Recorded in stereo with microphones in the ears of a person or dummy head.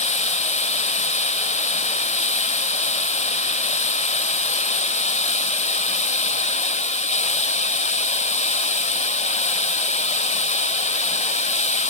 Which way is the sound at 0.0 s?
35° left (ahead or behind).